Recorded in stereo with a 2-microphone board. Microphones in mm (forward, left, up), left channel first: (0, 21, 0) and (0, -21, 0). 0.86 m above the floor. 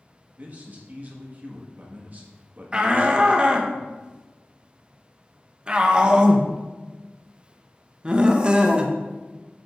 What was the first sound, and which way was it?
A man speaking, 40° right (ahead or behind).